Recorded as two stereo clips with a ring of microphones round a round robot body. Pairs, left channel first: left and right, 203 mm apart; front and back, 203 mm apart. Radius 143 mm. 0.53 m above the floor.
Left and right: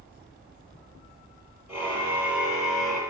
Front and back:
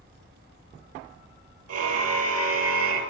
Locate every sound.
1.7 s a car horn: 175° right, 7.5 m; by 3.0 s straight behind, 6 m